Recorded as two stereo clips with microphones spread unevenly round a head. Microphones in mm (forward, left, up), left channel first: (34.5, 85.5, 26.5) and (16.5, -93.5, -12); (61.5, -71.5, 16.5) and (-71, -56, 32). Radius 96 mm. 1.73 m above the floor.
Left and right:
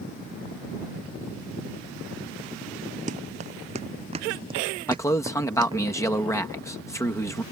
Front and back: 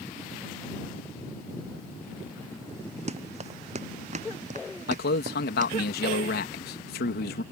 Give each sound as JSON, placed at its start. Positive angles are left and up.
{"t": 3.1, "sound": "running footsteps", "azimuth_deg": -155}
{"t": 4.9, "sound": "a man speaking", "azimuth_deg": 10}